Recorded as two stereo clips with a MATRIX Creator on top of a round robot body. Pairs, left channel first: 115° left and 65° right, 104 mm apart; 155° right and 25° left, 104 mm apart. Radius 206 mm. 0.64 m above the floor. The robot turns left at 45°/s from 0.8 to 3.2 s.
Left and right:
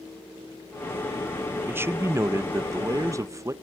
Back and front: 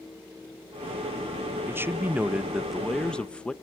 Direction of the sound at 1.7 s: 20° right.